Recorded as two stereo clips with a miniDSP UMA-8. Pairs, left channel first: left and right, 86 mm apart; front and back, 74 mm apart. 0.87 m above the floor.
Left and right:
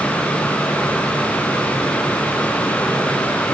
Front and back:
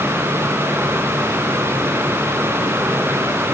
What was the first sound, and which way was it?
Only background noise.